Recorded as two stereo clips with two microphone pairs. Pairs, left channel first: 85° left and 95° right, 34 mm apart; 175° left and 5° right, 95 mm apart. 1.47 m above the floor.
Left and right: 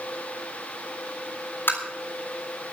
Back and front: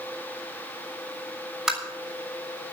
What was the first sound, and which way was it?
Tapping, 80° left.